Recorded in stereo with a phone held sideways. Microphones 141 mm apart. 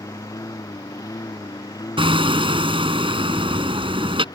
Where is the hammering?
40° right (ahead or behind).